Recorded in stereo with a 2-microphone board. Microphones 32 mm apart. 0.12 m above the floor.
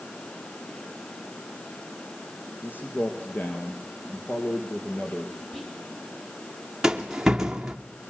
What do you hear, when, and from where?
2.6 s a man speaking: 65° left (ahead or behind), 3 m; by 5.4 s 50° left (ahead or behind), 4 m
5.5 s whispering: 5° left (ahead or behind), 3.5 m
6.8 s a rattle: 15° right (ahead or behind), 1.8 m